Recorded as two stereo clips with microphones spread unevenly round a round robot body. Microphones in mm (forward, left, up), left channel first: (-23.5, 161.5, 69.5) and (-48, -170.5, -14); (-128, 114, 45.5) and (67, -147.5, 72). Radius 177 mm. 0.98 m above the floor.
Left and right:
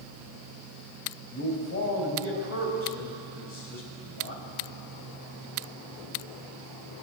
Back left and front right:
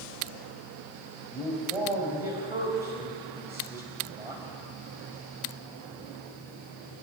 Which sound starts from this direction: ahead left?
A man speaking, at 1.3 s.